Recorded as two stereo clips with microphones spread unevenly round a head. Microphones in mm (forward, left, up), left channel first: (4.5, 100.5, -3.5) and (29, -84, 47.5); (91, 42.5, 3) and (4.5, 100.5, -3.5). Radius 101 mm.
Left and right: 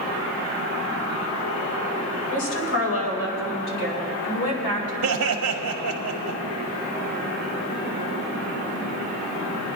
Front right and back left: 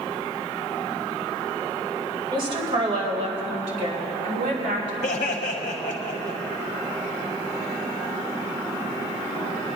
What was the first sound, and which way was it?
A woman speaking, 105° left.